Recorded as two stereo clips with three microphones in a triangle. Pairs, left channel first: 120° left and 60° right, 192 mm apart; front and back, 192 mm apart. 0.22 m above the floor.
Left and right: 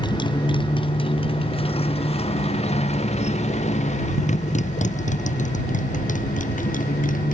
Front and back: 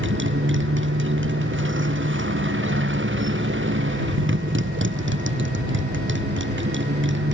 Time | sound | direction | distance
0.0 | a motorcycle | 175° right | ?